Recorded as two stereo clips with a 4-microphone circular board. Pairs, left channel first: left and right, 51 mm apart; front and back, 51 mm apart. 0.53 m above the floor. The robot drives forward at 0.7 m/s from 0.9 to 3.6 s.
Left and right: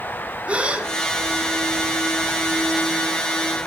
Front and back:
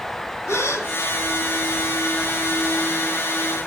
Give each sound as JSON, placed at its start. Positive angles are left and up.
{"t": 0.5, "sound": "a gasp", "azimuth_deg": -25, "distance_m": 2.5}